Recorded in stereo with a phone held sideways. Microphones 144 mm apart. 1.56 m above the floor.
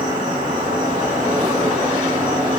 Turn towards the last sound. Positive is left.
turn(degrees=-70)  # may be behind; listen again after turning